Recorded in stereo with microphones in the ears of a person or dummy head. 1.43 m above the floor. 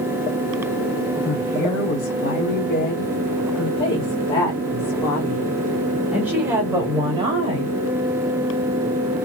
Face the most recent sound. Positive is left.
turn(degrees=-30)  # may be behind; listen again after turning